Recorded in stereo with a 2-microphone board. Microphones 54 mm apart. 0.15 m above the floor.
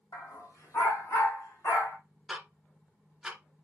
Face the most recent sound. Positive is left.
turn(degrees=-10)  # may be behind; listen again after turning